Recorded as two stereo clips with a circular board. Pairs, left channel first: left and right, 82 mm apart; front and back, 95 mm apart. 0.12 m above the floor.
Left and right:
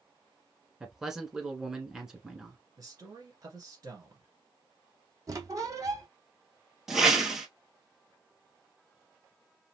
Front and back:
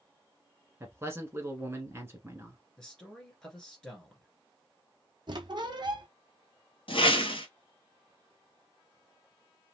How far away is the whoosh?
About 1.0 m.